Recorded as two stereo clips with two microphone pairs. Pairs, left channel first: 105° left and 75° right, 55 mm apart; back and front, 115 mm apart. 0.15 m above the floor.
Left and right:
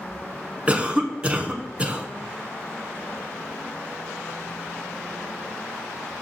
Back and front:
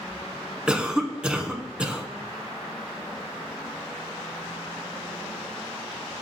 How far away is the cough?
About 1.1 m.